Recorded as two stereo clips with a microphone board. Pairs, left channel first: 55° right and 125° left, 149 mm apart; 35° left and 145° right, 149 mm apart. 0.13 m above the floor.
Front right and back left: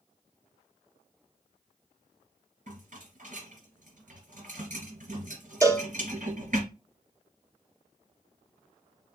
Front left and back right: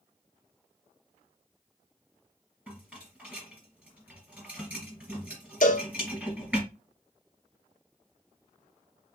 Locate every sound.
2.7 s a rattle: 135° left, 3 m
5.6 s a cowbell: 55° left, 0.8 m